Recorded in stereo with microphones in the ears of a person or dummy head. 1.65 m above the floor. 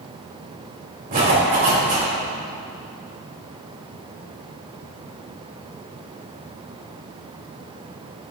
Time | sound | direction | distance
1.1 | a zipper | 40° right (ahead or behind) | 3 m